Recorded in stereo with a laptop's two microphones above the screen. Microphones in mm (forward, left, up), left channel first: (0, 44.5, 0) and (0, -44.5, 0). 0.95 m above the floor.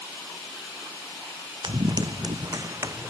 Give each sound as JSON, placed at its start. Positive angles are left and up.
{"t": 1.6, "sound": "running footsteps", "side_deg": -60}